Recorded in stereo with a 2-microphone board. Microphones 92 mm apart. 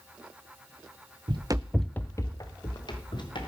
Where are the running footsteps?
60° right (ahead or behind), 0.8 m; by 3.5 s 60° left (ahead or behind), 3 m.